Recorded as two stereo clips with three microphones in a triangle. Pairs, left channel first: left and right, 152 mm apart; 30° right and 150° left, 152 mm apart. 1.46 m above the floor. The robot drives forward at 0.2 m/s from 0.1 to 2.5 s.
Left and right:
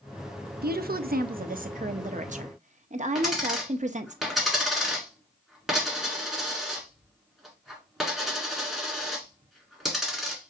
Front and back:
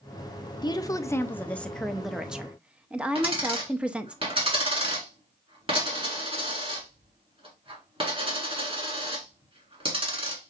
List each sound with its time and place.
0.6 s a woman speaking: 95° right, 0.6 m; by 4.2 s 125° right, 0.7 m
3.1 s a dropped coin: straight behind, 1.7 m